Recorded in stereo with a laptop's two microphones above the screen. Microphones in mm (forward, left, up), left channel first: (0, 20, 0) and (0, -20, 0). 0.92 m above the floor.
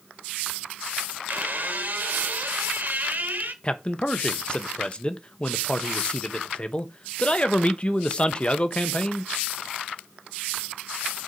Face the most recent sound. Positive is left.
turn(degrees=30)  # may be behind; listen again after turning